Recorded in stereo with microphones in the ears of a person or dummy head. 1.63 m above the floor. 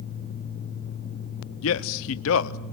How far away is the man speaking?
About 0.7 m.